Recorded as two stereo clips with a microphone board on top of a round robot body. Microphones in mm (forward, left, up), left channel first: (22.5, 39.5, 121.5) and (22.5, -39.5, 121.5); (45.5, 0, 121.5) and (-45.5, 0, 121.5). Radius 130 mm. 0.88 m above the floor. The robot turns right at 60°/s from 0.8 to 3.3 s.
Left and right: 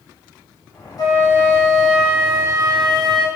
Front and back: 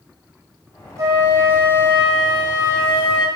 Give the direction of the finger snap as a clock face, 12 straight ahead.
No finger snap in this recording.